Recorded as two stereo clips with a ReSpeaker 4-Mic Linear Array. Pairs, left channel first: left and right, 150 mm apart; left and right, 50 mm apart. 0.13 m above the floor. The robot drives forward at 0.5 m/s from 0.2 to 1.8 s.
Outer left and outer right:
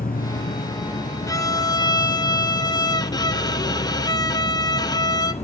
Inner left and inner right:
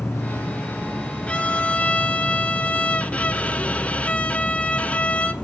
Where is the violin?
20° left (ahead or behind), 0.9 m; by 5.3 s 25° left (ahead or behind), 0.8 m.